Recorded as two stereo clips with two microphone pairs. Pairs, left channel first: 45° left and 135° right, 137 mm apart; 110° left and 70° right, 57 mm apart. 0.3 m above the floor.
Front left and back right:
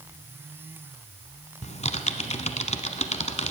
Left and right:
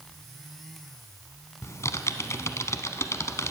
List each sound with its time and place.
1.6 s typing on a keyboard: 75° left, 0.8 m